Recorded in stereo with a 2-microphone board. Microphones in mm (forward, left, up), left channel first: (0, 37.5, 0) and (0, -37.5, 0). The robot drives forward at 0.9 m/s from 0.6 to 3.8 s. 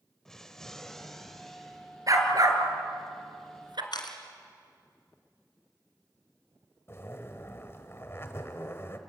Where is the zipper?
35° left (ahead or behind), 1.4 m.